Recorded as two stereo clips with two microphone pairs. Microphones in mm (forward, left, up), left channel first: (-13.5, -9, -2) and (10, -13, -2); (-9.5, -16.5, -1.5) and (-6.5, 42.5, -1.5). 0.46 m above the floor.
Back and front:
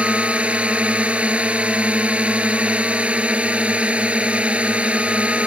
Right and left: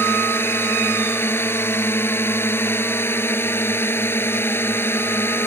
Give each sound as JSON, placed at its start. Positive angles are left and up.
{"t": 0.0, "sound": "a drone", "azimuth_deg": -45}